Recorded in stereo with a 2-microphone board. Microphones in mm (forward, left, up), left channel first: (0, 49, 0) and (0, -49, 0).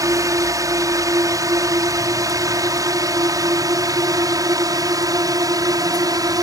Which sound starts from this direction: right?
A drone, at 0.0 s.